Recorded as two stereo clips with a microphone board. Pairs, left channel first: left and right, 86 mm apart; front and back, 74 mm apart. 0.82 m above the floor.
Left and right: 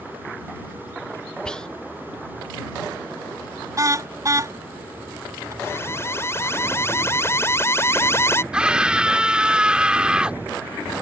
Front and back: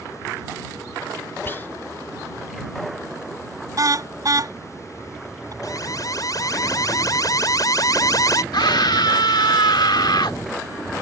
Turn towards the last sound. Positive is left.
turn(degrees=-10)